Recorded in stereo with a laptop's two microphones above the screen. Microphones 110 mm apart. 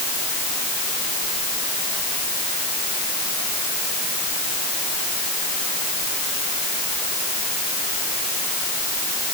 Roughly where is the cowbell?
I don't hear a cowbell.